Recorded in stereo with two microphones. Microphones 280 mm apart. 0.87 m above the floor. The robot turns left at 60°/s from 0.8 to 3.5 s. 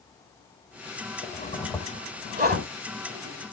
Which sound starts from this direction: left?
A zipper, at 1.2 s.